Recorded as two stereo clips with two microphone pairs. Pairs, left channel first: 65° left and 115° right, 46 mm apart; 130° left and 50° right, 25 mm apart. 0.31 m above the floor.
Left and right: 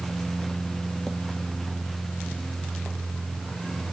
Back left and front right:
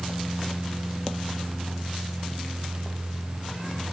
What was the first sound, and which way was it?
Only background noise.